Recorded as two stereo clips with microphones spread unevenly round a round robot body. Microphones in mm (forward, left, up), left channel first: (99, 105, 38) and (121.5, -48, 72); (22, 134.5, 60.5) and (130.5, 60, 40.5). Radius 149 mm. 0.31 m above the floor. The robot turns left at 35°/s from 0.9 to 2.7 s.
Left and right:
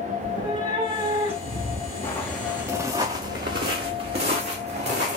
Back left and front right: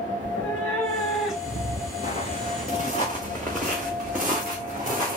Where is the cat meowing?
150° right, 1.0 m; by 1.9 s 175° left, 1.0 m.